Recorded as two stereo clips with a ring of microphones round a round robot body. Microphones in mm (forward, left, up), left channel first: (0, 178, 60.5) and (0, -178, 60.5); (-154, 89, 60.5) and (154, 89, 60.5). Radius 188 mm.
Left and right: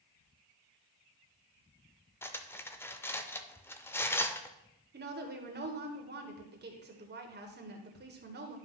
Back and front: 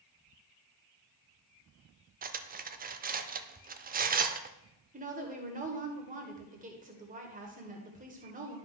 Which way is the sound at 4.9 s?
45° right.